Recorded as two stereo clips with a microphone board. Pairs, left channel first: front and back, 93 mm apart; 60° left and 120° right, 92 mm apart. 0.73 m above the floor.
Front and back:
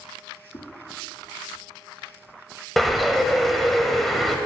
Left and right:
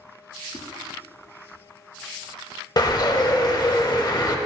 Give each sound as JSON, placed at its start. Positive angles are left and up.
{"t": 0.5, "sound": "a whoosh", "azimuth_deg": 15, "distance_m": 1.0}
{"t": 2.8, "sound": "a bird", "azimuth_deg": 90, "distance_m": 0.8}